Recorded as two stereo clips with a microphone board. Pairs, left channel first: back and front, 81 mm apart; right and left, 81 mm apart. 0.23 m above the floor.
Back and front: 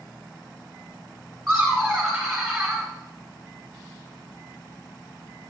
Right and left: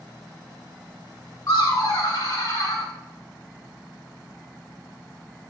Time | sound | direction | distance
1.5 | laughter | 90° right | 1.7 m